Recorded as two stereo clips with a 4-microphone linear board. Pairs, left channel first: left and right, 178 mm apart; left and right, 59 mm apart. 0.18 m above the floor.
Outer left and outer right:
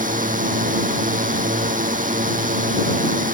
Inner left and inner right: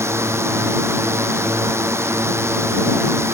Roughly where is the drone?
Right.